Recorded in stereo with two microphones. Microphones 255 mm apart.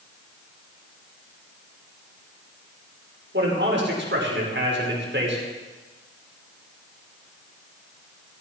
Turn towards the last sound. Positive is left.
turn(degrees=-45)  # may be behind; listen again after turning